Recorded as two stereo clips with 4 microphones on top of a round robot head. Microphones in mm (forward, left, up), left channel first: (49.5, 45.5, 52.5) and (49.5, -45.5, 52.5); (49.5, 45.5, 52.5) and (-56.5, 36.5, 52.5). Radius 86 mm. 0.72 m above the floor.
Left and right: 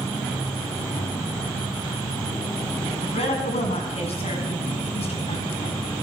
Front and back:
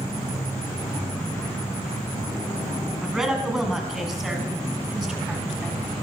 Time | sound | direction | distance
3.0 | a woman speaking | 100° left | 6 m